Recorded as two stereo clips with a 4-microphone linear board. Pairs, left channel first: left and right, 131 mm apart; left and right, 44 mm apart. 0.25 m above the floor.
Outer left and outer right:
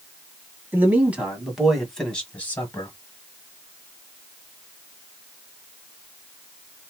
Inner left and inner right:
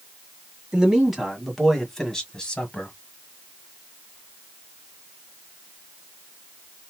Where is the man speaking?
15° right (ahead or behind), 1.7 m; by 3.0 s 25° left (ahead or behind), 1.5 m.